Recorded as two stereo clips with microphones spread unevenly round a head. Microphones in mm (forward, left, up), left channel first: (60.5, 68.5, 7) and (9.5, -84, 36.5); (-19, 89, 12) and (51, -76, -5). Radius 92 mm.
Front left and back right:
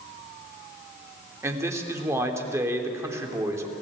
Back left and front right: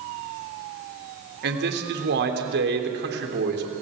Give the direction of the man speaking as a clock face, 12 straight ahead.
1 o'clock.